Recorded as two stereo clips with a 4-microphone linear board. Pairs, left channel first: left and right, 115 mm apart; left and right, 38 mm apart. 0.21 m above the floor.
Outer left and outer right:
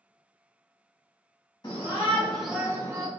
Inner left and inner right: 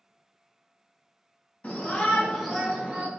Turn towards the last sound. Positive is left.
turn(degrees=-30)  # may be behind; listen again after turning